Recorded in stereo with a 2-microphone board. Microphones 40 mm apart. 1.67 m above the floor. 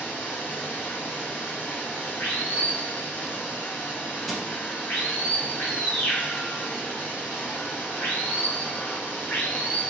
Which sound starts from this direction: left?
Running water, at 0.0 s.